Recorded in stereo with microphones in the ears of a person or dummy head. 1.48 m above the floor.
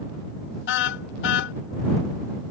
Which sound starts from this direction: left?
A car horn, at 0.7 s.